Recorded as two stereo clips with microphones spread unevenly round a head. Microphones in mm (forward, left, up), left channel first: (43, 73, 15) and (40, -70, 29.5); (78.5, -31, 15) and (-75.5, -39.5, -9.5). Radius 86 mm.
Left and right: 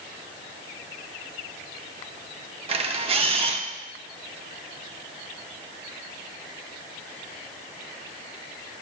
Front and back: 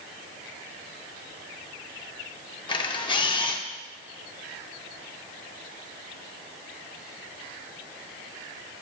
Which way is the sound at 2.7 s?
50° right.